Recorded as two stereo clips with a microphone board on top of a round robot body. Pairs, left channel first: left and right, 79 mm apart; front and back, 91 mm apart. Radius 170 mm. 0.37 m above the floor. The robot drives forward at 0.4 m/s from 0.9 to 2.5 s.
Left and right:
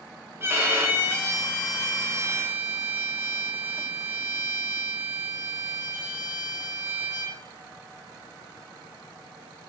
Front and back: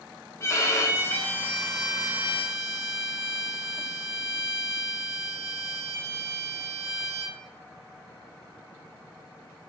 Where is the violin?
45° right, 0.8 m; by 7.4 s 130° right, 0.8 m.